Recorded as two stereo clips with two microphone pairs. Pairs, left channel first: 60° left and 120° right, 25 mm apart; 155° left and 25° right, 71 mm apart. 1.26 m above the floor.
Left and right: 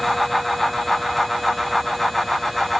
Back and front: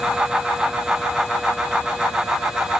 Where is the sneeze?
I don't hear a sneeze.